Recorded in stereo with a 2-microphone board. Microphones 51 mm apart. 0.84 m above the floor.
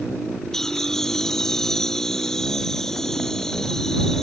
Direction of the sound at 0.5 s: 10° left (ahead or behind).